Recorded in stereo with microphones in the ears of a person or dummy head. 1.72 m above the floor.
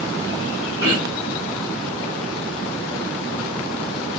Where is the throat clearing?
25° right (ahead or behind), 1.1 m.